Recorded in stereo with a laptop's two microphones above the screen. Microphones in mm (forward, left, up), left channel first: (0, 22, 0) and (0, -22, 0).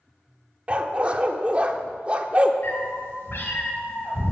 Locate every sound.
0.7 s a dog barking: 30° right (ahead or behind), 0.7 m
2.6 s a cat meowing: 60° left (ahead or behind), 2.5 m